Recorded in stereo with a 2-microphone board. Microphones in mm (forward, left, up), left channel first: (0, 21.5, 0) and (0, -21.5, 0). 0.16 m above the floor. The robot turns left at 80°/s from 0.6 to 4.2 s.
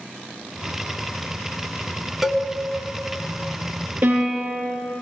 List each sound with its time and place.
2.2 s a cowbell: 5° right (ahead or behind), 0.7 m; by 2.4 s 15° right (ahead or behind), 0.7 m
4.0 s a piano: 45° right (ahead or behind), 3.5 m; by 4.6 s 30° right (ahead or behind), 3.5 m